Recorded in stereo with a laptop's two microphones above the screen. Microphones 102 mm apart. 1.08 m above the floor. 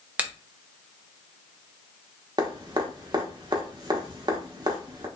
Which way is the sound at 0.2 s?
10° right (ahead or behind).